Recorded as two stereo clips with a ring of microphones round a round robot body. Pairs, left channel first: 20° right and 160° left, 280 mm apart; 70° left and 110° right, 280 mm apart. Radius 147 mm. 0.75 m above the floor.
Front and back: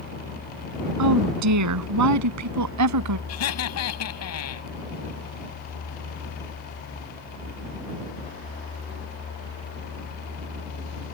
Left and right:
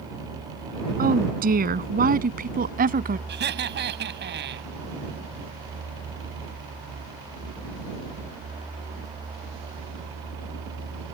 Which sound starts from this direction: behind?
A woman speaking, at 1.0 s.